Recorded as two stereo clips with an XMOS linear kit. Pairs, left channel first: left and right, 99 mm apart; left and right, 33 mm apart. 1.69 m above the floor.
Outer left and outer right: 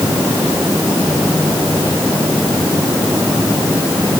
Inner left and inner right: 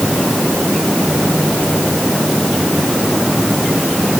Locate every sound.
Only background noise.